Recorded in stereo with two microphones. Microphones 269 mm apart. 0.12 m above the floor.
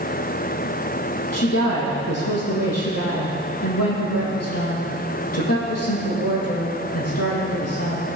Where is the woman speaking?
65° left (ahead or behind), 5 m.